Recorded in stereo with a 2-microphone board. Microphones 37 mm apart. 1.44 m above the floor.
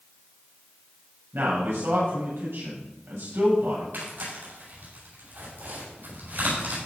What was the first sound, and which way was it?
A man speaking, 85° right.